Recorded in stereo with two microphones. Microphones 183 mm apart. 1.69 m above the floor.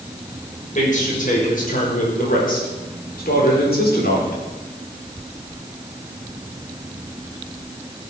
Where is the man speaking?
45° left (ahead or behind), 6.5 m; by 4.4 s 70° left (ahead or behind), 4 m.